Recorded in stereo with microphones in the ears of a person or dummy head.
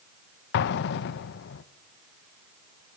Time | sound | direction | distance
0.5 | an explosion | 50° left (ahead or behind) | 1.1 m